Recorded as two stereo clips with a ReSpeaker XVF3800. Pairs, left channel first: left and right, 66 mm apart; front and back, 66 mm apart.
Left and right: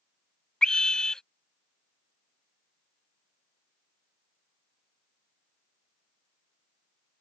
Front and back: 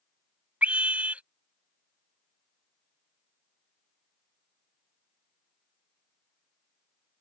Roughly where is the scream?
Behind left.